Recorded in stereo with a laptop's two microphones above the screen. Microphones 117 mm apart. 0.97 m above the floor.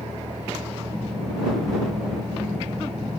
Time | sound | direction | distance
0.0 | a vehicle | 90° right | ?